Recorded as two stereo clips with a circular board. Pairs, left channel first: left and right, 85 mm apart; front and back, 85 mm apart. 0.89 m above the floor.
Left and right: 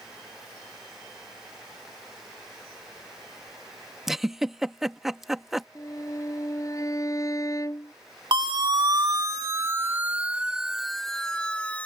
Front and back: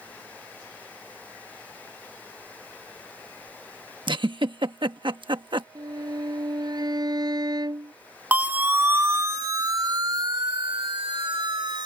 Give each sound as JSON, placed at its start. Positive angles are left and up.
{"t": 4.1, "sound": "a giggle", "azimuth_deg": -175}
{"t": 5.8, "sound": "a violin", "azimuth_deg": 140}
{"t": 8.3, "sound": "a siren", "azimuth_deg": -110}